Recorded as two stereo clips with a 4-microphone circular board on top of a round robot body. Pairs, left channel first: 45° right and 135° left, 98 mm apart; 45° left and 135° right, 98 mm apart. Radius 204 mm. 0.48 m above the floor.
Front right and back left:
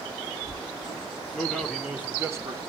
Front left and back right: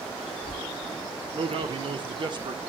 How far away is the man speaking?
About 1.9 m.